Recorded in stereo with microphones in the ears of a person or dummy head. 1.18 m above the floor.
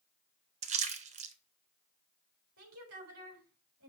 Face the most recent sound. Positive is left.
turn(degrees=-90)